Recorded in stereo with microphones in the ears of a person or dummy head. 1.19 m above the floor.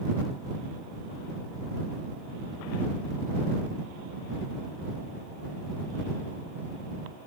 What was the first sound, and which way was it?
Only background noise.